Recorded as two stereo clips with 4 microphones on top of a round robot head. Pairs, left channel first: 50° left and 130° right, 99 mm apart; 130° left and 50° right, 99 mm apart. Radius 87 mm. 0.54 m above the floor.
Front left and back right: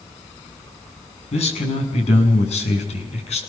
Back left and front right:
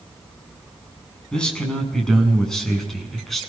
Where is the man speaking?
50° left, 7 m; by 3.4 s 40° left, 7.5 m.